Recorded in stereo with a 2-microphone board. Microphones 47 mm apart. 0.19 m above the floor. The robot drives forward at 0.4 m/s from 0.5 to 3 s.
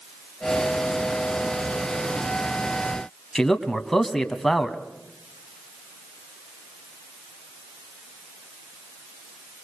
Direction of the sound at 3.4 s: 5° left (ahead or behind).